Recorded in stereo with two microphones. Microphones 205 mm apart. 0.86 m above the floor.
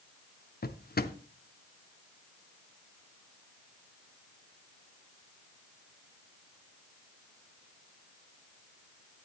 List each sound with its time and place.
0.6 s a drawer: 50° left (ahead or behind), 0.7 m